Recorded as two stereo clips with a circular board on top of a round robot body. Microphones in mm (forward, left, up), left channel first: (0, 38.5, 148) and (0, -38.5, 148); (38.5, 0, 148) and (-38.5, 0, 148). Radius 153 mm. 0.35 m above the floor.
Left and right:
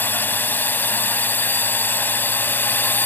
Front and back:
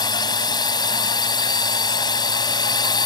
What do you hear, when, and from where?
0.0 s a drone: 25° left